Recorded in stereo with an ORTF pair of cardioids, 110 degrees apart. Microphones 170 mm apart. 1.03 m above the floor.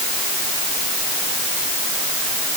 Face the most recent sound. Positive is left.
No sound to turn to.